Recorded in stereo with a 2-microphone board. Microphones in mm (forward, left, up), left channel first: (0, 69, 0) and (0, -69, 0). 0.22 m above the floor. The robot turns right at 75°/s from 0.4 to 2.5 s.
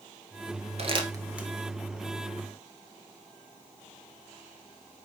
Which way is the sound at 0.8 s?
50° right (ahead or behind).